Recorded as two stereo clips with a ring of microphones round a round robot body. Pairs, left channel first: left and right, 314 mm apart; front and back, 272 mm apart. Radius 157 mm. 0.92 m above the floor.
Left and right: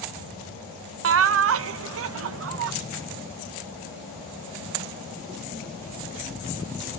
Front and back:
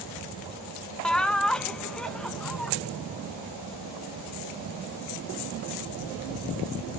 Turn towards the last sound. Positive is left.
turn(degrees=-85)